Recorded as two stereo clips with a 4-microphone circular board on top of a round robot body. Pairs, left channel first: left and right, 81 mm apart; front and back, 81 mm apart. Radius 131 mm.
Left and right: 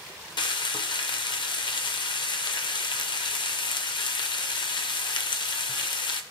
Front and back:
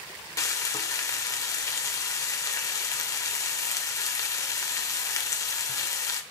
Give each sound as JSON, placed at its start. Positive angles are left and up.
{"t": 0.4, "sound": "frying", "azimuth_deg": 55, "distance_m": 0.5}